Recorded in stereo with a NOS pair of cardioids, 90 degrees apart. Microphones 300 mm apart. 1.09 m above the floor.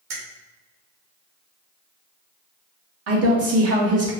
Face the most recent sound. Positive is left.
turn(degrees=-50)